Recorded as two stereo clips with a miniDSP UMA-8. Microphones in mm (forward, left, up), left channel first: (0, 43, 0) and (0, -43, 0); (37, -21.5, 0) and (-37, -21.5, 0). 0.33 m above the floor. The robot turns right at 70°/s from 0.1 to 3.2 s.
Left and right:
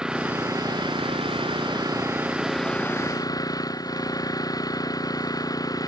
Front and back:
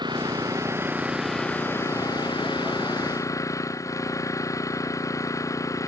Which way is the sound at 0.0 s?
170° right.